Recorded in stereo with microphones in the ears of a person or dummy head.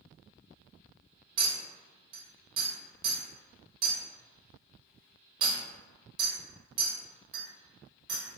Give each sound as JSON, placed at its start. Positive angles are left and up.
{"t": 1.4, "sound": "a clink", "side_deg": -45, "distance_m": 1.1}